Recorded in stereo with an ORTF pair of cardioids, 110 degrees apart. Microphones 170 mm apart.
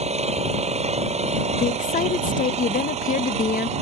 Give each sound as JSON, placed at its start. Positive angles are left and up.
{"t": 0.0, "sound": "an engine running", "azimuth_deg": -35}
{"t": 1.6, "sound": "a woman speaking", "azimuth_deg": 45}